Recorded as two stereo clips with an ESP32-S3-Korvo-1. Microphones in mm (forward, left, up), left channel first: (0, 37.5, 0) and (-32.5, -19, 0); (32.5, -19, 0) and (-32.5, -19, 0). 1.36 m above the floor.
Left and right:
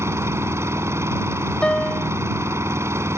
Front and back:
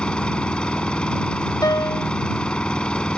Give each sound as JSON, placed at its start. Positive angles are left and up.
{"t": 0.0, "sound": "an engine running", "azimuth_deg": -75}
{"t": 1.6, "sound": "a piano", "azimuth_deg": -15}